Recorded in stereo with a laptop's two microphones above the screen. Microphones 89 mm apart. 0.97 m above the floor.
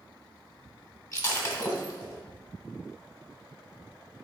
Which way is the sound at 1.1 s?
40° left (ahead or behind).